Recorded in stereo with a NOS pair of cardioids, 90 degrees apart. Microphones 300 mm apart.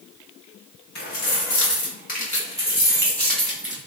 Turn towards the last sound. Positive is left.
turn(degrees=-5)